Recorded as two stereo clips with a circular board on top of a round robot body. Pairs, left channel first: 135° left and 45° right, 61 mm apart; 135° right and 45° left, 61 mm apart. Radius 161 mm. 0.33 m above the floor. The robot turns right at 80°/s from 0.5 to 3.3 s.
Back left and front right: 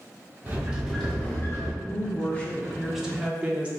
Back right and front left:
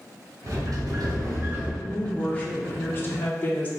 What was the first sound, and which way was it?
A sliding door, 15° left.